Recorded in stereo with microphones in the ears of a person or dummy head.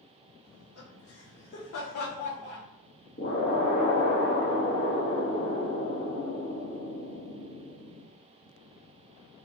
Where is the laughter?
80° left, 1.2 m; by 2.6 s 20° left (ahead or behind), 0.6 m.